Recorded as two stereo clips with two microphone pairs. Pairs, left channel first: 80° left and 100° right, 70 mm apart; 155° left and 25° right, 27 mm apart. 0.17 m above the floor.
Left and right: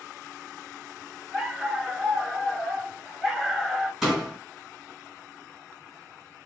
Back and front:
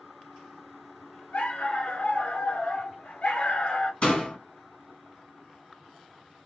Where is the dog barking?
165° left, 0.8 m.